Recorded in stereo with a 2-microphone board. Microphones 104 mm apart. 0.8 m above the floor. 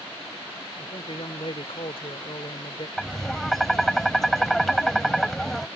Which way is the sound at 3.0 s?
5° left (ahead or behind).